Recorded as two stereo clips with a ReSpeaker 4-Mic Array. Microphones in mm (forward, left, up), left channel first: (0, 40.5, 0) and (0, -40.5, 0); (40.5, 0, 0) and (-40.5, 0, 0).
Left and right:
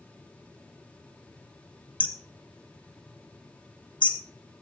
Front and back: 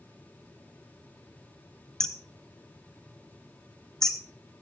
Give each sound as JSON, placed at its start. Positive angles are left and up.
{"t": 2.0, "sound": "hammering", "azimuth_deg": 85, "distance_m": 1.1}